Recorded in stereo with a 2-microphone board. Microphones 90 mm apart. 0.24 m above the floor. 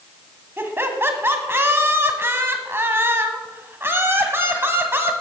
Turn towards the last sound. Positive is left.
turn(degrees=-25)  # may be behind; listen again after turning